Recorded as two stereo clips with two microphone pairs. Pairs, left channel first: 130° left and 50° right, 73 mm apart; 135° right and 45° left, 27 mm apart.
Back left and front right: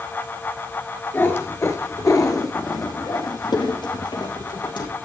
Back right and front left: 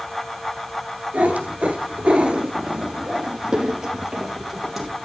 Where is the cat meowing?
70° left, 2 m; by 4.9 s 130° left, 3.5 m.